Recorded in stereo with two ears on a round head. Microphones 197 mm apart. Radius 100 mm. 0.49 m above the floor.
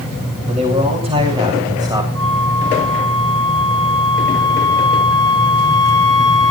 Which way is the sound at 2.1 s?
85° right.